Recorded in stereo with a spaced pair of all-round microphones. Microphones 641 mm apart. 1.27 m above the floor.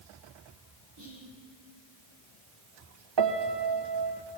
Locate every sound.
1.0 s whispering: 40° right (ahead or behind), 1.1 m
3.2 s a piano: 45° right (ahead or behind), 0.6 m